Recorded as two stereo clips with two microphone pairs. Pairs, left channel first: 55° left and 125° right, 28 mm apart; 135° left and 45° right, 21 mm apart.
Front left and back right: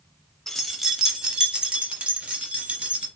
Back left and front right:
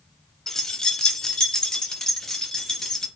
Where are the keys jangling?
115° left, 0.8 m; by 3.1 s 160° right, 2.5 m.